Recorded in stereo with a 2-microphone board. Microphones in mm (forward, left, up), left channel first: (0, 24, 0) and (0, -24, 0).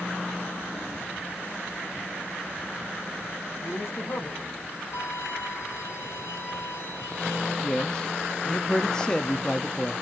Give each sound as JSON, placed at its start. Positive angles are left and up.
{"t": 3.6, "sound": "a man speaking", "side_deg": 70, "distance_m": 3.0}
{"t": 4.9, "sound": "a violin", "side_deg": 70, "distance_m": 3.5}
{"t": 7.6, "sound": "a man speaking", "side_deg": 15, "distance_m": 0.8}